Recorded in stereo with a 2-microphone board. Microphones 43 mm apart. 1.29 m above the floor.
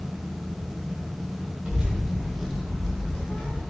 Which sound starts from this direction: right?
A child speaking, at 1.6 s.